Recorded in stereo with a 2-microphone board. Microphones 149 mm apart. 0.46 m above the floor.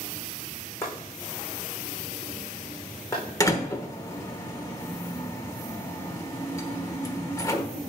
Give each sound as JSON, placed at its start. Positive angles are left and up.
{"t": 0.8, "sound": "chopping", "side_deg": 20, "distance_m": 4.5}
{"t": 3.4, "sound": "a door slam", "side_deg": 20, "distance_m": 1.1}